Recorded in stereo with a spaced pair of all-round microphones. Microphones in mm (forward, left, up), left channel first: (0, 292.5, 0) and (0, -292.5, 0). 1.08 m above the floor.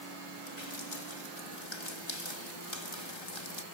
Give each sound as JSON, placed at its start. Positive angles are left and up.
{"t": 0.5, "sound": "dripping", "side_deg": 50}